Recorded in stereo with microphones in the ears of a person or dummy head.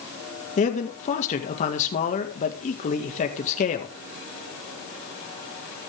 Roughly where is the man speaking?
Left.